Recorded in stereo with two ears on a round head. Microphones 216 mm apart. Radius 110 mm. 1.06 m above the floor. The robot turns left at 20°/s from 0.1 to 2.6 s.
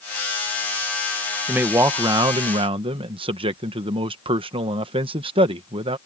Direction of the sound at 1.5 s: 5° right (ahead or behind).